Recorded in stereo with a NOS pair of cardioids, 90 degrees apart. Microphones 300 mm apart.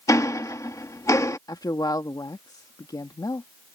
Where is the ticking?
10° left.